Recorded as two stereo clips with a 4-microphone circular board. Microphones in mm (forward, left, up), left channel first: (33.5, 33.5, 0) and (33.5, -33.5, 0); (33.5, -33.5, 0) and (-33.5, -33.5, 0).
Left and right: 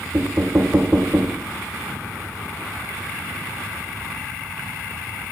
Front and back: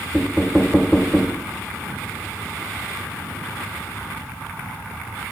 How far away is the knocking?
About 0.8 m.